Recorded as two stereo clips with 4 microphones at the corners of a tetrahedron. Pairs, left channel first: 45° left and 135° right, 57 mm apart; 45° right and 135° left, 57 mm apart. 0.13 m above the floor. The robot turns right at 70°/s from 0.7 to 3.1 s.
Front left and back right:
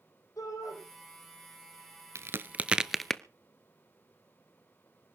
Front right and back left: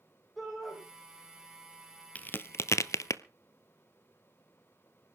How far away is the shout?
About 7.5 m.